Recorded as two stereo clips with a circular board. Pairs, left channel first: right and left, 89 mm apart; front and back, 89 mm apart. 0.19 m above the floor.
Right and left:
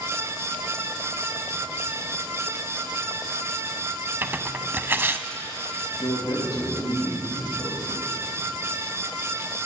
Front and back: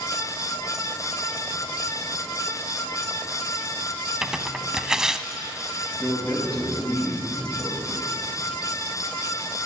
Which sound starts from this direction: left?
Tearing paper, at 4.2 s.